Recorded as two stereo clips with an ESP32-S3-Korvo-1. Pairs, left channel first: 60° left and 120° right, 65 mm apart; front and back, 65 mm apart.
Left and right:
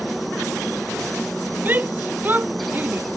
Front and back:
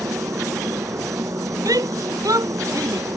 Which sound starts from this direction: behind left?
A helicopter, at 0.0 s.